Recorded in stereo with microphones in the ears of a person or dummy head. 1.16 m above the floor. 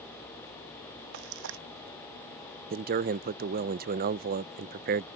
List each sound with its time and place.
1.1 s frying: 55° right (ahead or behind)
2.7 s a man speaking: 45° right (ahead or behind)